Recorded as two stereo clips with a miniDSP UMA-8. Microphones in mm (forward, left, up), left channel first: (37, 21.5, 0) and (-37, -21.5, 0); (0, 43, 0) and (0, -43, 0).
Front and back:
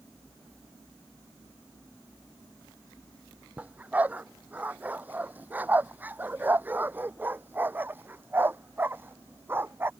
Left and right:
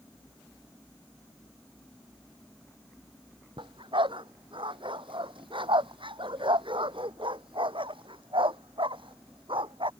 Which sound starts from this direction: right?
A dog barking, at 3.6 s.